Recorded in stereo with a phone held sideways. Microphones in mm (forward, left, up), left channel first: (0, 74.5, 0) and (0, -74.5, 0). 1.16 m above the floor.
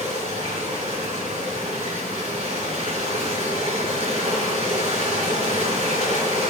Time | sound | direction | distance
0.0 | running water | 45° right (ahead or behind) | 5 m